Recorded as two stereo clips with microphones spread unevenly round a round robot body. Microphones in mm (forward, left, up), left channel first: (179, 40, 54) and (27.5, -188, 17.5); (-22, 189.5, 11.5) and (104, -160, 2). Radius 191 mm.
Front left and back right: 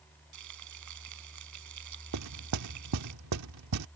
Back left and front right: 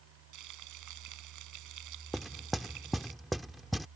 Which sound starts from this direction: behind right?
Frying, at 0.3 s.